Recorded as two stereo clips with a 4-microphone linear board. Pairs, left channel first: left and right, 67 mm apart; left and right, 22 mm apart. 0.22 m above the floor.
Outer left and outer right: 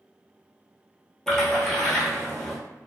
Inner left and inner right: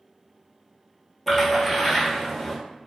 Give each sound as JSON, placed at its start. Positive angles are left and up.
{"t": 1.3, "sound": "a splash", "side_deg": 5, "distance_m": 1.0}